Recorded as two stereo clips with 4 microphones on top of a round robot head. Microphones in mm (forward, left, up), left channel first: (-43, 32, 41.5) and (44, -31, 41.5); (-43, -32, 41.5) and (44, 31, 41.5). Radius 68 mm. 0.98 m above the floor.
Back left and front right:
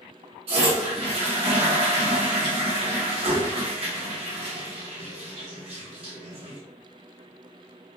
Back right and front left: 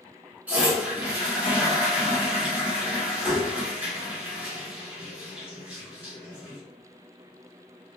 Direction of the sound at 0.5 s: 40° right.